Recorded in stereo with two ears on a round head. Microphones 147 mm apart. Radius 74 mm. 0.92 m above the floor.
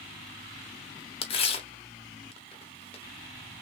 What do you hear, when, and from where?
1.2 s tearing paper: 35° left (ahead or behind), 1.0 m